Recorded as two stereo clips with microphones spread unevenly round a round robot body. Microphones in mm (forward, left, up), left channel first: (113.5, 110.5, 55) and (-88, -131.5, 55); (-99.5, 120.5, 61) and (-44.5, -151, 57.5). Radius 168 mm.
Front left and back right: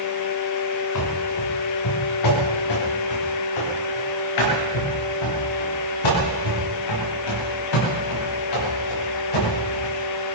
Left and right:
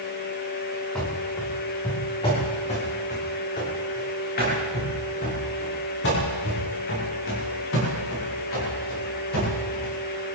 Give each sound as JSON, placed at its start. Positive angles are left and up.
{"t": 0.9, "sound": "running footsteps", "azimuth_deg": 15, "distance_m": 3.5}